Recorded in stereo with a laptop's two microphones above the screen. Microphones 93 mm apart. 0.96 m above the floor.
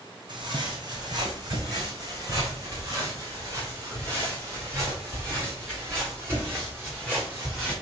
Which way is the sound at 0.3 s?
55° right (ahead or behind).